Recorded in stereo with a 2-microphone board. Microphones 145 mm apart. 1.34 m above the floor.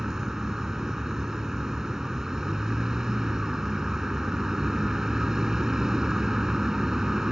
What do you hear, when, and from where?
0.0 s a vehicle: 5° right (ahead or behind)